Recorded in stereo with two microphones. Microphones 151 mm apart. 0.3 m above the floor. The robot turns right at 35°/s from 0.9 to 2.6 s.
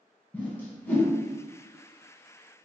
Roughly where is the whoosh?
Centre.